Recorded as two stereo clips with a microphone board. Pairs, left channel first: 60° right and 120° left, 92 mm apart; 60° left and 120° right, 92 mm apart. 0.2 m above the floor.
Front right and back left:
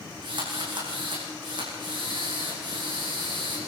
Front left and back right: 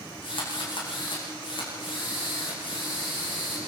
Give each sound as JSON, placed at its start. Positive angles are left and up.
{"t": 0.2, "sound": "a drill", "azimuth_deg": 90, "distance_m": 8.5}